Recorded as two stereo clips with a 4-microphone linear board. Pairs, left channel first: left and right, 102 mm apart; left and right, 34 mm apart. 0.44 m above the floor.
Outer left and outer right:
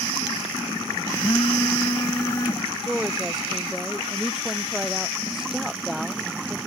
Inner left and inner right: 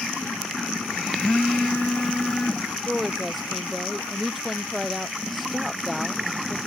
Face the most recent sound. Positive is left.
turn(degrees=0)  # may be behind; listen again after turning